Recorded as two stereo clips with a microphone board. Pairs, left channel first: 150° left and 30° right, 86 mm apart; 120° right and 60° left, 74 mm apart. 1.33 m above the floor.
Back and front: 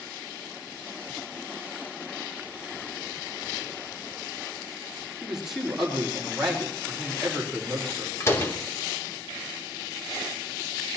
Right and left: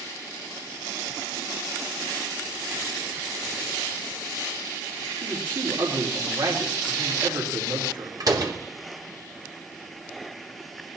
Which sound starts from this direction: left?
A door slam, at 8.2 s.